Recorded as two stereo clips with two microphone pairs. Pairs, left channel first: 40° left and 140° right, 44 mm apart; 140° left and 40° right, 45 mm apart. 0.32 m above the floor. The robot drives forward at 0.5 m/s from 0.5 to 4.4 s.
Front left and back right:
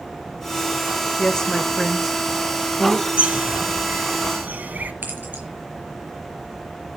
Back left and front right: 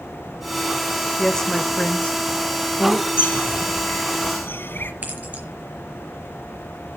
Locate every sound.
1.2 s a woman speaking: 65° left, 0.9 m; by 3.1 s 160° left, 1.2 m
3.2 s a bird: 170° left, 0.9 m; by 4.9 s 175° left, 1.4 m
5.0 s keys jangling: 90° right, 4.5 m